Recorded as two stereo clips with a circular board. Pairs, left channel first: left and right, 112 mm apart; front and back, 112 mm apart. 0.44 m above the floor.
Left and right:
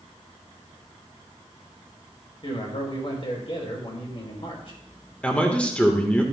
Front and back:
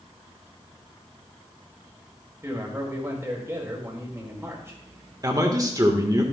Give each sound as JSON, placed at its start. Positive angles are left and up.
{"t": 2.4, "sound": "a man speaking", "azimuth_deg": 115, "distance_m": 2.0}
{"t": 5.2, "sound": "a man speaking", "azimuth_deg": 160, "distance_m": 1.3}